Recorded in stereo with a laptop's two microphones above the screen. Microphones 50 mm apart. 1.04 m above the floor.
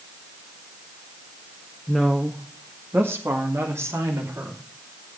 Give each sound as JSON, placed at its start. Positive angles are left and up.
{"t": 1.9, "sound": "a woman speaking", "side_deg": 0, "distance_m": 1.6}